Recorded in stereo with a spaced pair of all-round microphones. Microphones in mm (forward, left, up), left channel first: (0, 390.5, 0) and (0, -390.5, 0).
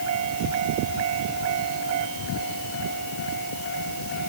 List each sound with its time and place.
Only background noise.